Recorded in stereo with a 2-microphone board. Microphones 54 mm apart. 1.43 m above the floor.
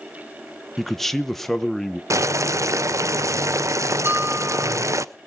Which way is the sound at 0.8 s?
5° left (ahead or behind).